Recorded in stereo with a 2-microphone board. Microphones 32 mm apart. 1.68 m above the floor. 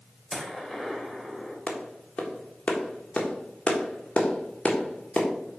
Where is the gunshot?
5° left (ahead or behind), 1.8 m.